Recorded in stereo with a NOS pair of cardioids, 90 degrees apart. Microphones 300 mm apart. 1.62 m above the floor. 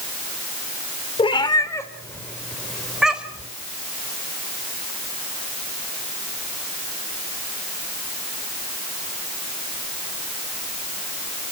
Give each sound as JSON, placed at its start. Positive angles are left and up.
{"t": 1.2, "sound": "a cat meowing", "azimuth_deg": 20, "distance_m": 3.0}